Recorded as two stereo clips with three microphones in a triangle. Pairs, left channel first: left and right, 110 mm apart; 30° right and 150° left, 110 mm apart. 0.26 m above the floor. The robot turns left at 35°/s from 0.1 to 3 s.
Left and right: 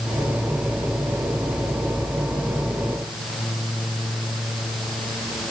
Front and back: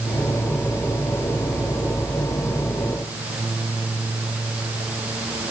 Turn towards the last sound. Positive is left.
No sound to turn to.